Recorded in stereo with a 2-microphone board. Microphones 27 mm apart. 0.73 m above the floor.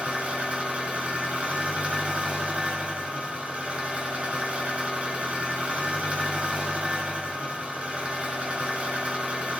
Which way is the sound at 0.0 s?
50° right (ahead or behind).